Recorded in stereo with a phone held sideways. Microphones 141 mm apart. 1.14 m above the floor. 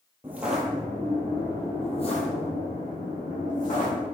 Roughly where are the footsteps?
Centre.